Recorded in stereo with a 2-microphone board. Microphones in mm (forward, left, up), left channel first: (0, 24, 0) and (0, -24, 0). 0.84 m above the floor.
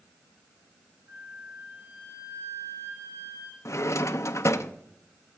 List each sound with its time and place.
1.1 s a flute: 50° right (ahead or behind), 4.5 m
3.6 s a drawer: 65° left (ahead or behind), 0.5 m